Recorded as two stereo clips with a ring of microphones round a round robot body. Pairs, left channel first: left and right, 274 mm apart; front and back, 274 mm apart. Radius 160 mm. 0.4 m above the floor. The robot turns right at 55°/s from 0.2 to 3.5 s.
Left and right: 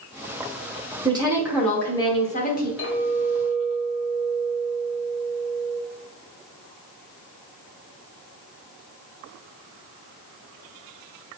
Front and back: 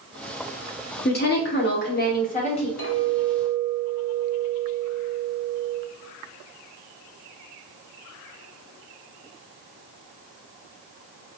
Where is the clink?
50° left, 1.4 m; by 5.8 s 90° left, 1.4 m.